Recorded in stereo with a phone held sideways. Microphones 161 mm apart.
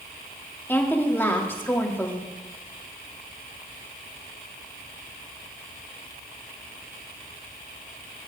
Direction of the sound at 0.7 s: 15° left (ahead or behind).